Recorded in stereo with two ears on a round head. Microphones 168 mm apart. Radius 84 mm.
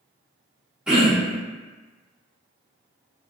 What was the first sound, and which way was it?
Throat clearing, 5° right (ahead or behind).